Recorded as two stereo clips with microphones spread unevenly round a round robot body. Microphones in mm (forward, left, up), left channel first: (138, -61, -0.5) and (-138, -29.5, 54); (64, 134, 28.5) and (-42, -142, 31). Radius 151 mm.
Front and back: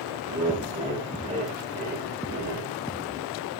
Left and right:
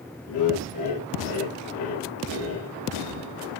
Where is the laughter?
95° left, 4.5 m; by 2.7 s 115° left, 2.5 m.